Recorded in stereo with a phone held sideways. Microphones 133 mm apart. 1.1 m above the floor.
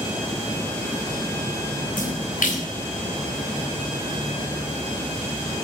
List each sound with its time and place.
2.0 s a splash: 85° left, 3.5 m